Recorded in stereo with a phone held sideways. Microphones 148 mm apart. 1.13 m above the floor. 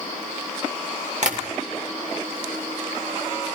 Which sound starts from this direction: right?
Tapping, at 1.2 s.